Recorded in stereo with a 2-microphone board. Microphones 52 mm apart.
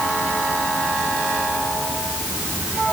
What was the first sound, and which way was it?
Only background noise.